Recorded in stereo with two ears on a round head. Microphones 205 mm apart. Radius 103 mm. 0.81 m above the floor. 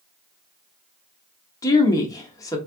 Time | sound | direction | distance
1.6 | a woman speaking | 15° left (ahead or behind) | 1.0 m